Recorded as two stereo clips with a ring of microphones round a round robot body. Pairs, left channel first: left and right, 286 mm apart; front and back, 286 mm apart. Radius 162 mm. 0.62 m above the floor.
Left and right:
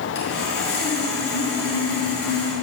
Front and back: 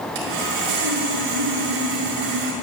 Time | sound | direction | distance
0.1 | sawing | 150° left | 6.5 m